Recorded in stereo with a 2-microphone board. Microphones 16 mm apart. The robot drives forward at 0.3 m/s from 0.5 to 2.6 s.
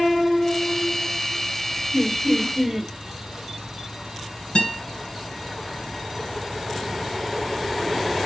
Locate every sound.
1.9 s laughter: 15° right (ahead or behind), 1.6 m
4.5 s a guitar: 85° left, 2 m